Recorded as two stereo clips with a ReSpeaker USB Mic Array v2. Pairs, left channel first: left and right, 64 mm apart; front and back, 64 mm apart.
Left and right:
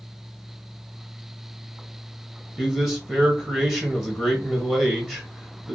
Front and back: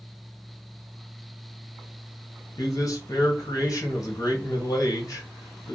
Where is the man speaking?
10° right, 0.8 m.